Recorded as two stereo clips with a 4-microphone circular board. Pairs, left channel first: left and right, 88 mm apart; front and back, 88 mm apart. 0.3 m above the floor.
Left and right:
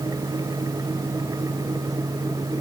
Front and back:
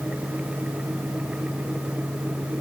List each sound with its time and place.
Only background noise.